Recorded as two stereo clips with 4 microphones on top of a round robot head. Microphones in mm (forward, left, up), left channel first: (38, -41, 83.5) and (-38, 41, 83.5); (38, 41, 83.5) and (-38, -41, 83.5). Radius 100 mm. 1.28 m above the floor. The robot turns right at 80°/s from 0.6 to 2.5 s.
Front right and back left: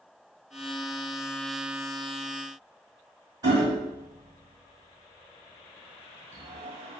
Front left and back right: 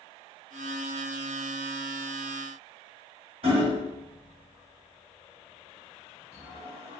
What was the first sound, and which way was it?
Hammering, 170° right.